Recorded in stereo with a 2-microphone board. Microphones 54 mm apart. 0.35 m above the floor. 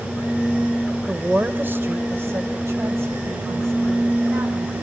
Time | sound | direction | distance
1.1 | a woman speaking | 25° right (ahead or behind) | 1.1 m